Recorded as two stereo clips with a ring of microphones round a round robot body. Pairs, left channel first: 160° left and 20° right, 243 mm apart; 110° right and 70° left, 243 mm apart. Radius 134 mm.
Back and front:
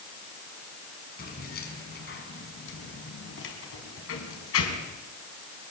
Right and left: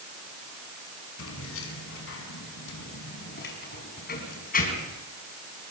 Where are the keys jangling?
145° right, 6 m; by 5.0 s 170° right, 5.5 m.